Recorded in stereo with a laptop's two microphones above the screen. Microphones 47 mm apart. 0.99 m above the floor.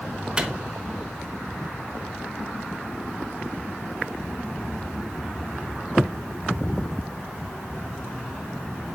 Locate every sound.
0.4 s a microwave: 20° right (ahead or behind), 0.6 m